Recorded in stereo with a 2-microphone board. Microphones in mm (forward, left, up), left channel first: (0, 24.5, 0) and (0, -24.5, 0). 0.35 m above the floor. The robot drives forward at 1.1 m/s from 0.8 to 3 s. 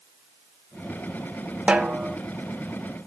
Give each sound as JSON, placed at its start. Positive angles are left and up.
{"t": 1.7, "sound": "a snare drum", "side_deg": -25, "distance_m": 0.8}